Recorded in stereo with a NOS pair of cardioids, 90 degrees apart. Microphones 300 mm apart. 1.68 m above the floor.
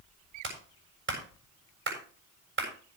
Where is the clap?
40° right, 7 m.